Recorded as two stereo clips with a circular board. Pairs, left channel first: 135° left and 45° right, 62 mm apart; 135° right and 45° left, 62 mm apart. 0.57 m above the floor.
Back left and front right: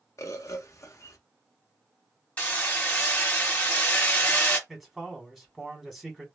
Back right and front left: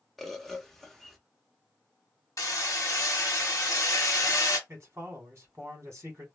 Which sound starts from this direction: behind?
Hammering, at 2.4 s.